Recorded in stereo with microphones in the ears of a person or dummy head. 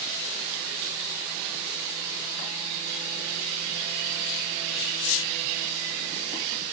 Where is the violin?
I don't hear a violin.